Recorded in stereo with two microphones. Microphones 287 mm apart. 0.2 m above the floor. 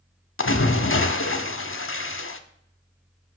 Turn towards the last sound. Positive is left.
turn(degrees=50)  # may be behind; listen again after turning